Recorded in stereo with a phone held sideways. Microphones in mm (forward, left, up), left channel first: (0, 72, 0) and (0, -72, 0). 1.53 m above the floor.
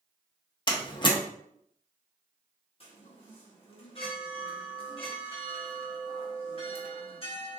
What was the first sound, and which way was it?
A door slam, 35° left (ahead or behind).